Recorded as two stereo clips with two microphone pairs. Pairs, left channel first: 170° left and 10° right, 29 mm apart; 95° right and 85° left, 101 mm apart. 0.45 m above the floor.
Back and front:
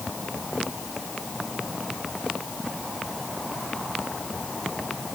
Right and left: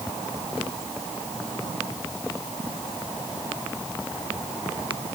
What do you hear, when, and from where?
Only background noise.